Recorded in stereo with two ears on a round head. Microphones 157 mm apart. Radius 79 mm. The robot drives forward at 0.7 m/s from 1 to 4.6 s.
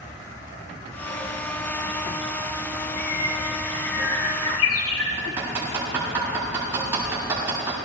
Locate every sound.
3.0 s a bird: 65° left (ahead or behind), 4 m; by 5.1 s 85° left, 3.5 m
5.2 s hammering: 15° right (ahead or behind), 8 m